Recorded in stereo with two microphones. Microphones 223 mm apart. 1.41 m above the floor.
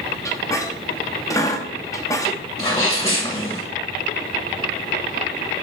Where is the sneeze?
20° left (ahead or behind), 1.6 m.